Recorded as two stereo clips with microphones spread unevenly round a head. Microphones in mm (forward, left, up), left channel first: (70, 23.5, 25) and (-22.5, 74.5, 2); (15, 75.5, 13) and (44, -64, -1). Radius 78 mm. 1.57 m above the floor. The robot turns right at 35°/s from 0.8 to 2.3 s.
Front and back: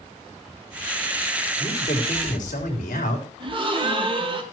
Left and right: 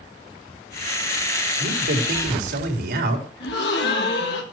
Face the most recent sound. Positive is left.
turn(degrees=110)